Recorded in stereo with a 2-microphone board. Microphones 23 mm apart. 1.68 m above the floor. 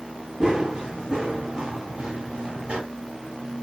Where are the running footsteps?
25° right (ahead or behind), 2.5 m; by 2.8 s 50° right (ahead or behind), 2.5 m.